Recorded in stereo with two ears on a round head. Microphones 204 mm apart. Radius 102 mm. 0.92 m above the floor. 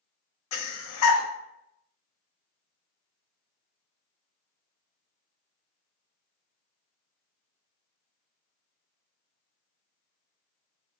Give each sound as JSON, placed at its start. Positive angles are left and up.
{"t": 0.5, "sound": "breathing", "side_deg": 70, "distance_m": 0.6}